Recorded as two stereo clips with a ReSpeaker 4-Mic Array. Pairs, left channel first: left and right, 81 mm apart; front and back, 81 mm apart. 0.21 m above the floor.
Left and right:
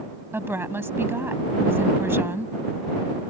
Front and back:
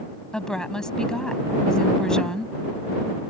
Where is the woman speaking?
75° right.